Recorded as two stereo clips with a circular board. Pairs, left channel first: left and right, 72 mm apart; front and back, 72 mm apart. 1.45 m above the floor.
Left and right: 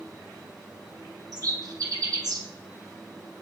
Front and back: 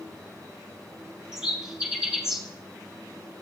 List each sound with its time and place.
1.3 s a bird: 100° right, 1.3 m